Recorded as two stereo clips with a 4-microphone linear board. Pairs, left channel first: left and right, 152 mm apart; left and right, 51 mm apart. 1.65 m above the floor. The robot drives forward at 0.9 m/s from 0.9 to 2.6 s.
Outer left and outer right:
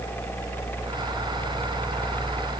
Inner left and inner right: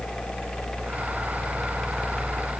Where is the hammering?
No hammering in this recording.